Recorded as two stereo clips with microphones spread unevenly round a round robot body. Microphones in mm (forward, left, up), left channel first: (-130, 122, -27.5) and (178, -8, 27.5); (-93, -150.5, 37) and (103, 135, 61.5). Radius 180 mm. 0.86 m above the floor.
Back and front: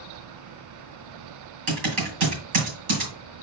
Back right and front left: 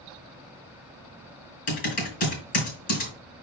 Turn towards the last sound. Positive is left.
turn(degrees=-55)